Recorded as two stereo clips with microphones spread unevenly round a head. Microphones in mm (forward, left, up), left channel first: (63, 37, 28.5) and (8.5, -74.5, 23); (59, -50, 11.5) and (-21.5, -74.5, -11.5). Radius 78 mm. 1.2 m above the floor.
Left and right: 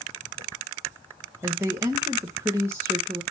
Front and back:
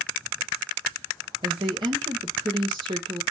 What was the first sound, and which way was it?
A woman speaking, 175° left.